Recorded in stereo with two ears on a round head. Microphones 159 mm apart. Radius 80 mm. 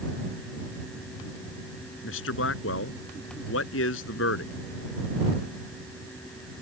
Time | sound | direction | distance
2.0 | a man speaking | 80° left | ?